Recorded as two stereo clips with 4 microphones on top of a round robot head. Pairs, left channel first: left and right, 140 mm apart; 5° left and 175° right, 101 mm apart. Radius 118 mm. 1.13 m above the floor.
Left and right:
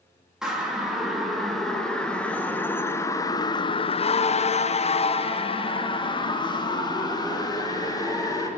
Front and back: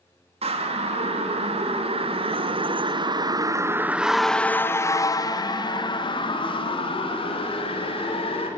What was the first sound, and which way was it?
A siren, 175° right.